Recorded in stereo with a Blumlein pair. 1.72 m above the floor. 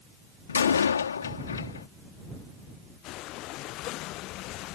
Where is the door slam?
70° left.